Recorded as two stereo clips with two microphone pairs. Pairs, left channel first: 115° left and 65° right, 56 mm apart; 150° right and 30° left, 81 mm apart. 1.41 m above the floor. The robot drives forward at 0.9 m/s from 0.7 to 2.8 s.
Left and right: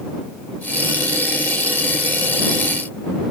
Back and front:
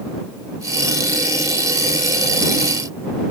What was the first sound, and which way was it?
Only background noise.